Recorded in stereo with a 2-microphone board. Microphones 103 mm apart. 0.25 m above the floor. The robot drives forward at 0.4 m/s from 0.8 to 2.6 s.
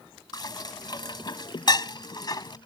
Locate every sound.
0.3 s dishes clattering: 50° left (ahead or behind); by 2.6 s 45° left (ahead or behind)